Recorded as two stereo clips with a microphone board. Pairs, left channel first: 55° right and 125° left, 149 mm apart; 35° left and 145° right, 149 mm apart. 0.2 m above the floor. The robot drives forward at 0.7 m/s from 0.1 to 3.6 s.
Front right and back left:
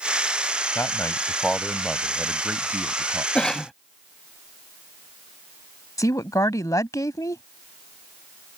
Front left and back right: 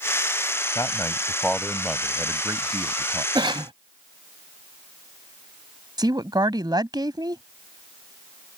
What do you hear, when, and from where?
0.8 s a man speaking: 5° right; by 3.2 s 175° right
3.4 s a cough: 135° right; by 3.7 s 140° right
6.0 s a woman speaking: 105° right